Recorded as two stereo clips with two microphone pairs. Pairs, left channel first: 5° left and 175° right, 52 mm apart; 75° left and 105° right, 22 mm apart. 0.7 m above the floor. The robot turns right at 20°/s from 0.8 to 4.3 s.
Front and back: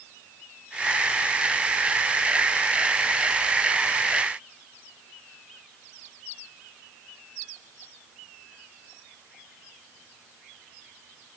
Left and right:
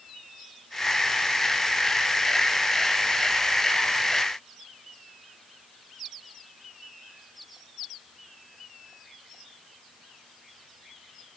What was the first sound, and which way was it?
Only background noise.